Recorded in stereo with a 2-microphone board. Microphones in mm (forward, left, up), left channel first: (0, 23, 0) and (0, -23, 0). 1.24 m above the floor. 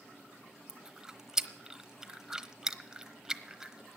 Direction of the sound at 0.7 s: 15° right (ahead or behind).